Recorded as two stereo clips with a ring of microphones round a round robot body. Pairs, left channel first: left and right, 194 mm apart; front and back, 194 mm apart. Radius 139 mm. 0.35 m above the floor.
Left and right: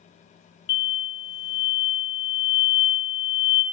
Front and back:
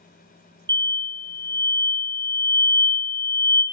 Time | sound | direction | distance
0.7 | an explosion | 125° left | 0.6 m